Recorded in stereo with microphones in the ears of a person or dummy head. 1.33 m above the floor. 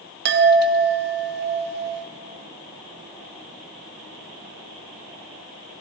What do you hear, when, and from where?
0.2 s a chime: 55° right (ahead or behind), 1.9 m